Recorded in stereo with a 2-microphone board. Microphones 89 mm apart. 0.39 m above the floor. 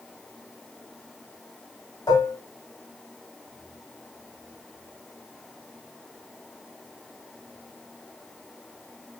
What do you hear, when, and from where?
2.1 s dishes clattering: 45° left (ahead or behind), 1.5 m